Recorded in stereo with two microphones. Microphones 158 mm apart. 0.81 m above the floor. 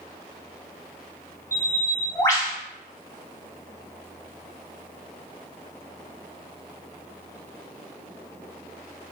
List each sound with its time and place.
1.5 s a bird: 20° left (ahead or behind), 0.7 m